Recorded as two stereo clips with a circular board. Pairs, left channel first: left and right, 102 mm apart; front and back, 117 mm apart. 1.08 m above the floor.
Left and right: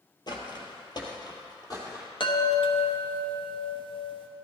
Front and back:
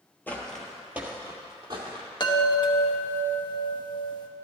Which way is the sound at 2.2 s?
50° left.